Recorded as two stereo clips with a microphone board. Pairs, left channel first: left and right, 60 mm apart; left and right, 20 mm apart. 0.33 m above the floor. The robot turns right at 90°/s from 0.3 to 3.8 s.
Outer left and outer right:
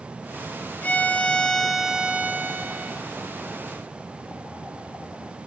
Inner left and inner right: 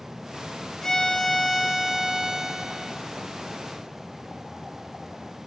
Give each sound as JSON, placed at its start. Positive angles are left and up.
{"t": 0.8, "sound": "a violin", "side_deg": 30, "distance_m": 1.6}